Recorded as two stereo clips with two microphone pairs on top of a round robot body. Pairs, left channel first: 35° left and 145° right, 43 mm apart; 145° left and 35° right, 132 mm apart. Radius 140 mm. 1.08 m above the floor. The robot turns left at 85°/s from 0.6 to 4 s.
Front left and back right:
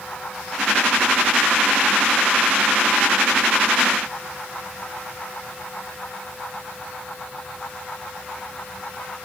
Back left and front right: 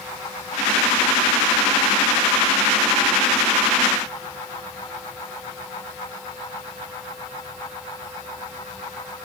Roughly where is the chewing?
No chewing in this recording.